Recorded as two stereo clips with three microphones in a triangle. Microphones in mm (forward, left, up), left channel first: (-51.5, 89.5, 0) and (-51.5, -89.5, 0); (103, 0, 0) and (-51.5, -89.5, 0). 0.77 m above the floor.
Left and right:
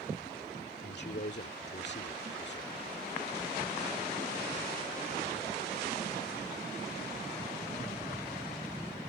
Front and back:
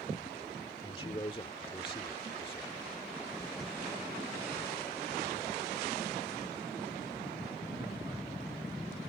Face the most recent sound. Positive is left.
turn(degrees=85)